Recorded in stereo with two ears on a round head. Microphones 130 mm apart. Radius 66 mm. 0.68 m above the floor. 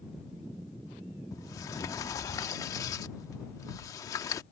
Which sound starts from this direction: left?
A sliding door, at 1.3 s.